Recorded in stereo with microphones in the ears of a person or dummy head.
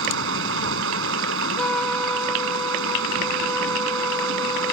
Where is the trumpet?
5° left (ahead or behind).